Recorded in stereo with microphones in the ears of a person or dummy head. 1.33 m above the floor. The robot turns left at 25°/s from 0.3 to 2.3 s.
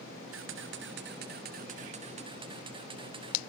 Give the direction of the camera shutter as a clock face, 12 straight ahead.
4 o'clock.